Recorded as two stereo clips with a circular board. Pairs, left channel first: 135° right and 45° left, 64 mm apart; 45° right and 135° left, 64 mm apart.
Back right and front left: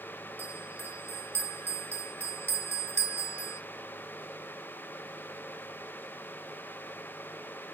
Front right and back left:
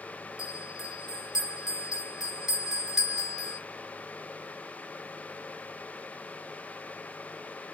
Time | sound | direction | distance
0.4 | a bell | 55° left | 0.7 m